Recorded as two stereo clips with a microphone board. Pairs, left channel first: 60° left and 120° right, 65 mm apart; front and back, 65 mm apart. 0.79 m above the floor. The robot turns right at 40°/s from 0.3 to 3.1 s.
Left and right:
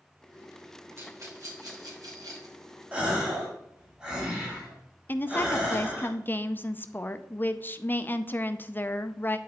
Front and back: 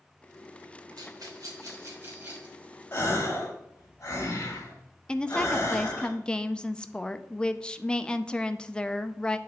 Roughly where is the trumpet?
I don't hear a trumpet.